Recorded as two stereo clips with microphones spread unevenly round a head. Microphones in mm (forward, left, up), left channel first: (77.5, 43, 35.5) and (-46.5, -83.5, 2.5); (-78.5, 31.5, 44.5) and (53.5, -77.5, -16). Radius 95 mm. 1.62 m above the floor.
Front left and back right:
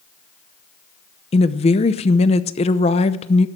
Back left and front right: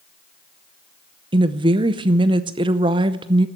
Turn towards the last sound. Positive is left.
turn(degrees=40)